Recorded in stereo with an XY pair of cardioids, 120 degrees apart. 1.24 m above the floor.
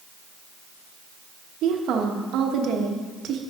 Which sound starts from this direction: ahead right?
A woman speaking, at 1.6 s.